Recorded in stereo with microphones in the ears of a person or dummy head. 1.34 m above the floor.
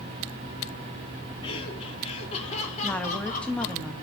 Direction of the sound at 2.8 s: 10° left (ahead or behind).